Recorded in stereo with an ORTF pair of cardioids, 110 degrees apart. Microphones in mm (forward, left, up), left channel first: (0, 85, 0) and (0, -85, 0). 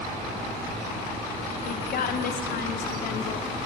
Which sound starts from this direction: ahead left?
A woman speaking, at 1.6 s.